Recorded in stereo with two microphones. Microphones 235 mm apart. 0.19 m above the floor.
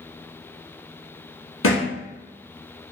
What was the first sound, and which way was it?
A thud, 65° left (ahead or behind).